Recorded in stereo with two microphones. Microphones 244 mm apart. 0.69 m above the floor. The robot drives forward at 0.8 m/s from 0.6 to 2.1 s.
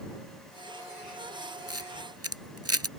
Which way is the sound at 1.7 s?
75° right (ahead or behind).